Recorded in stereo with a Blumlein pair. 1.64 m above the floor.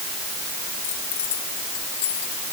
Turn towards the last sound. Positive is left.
turn(degrees=60)